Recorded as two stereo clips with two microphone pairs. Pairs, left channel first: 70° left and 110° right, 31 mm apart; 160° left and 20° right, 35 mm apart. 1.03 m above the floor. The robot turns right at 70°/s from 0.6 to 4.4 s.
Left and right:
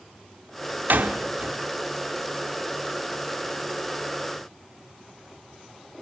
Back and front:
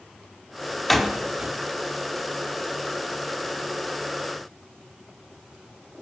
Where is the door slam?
115° right, 1.9 m; by 1.6 s 65° right, 1.9 m.